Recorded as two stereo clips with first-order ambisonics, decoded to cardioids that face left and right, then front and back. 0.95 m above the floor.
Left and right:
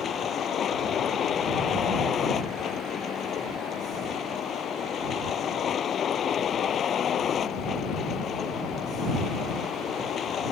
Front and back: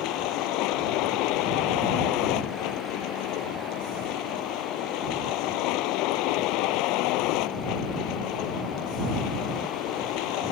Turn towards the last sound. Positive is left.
turn(degrees=25)